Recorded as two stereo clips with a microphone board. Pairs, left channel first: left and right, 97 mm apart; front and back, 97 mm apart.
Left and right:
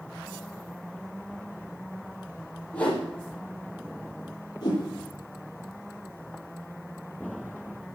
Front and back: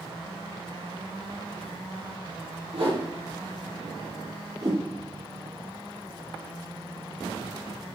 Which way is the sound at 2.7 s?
160° left.